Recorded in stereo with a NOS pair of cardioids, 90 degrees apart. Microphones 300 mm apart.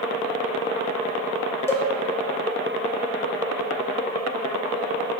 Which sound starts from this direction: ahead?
A cowbell, at 1.7 s.